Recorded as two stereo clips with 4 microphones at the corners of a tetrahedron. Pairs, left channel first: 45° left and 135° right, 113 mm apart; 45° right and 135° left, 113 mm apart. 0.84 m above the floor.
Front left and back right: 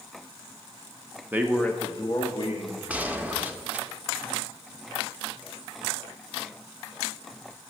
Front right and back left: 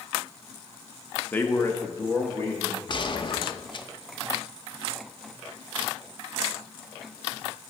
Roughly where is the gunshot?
Ahead right.